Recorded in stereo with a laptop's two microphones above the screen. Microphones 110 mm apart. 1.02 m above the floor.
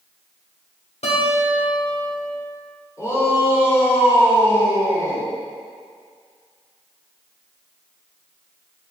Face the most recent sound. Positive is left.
turn(degrees=30)  # may be behind; listen again after turning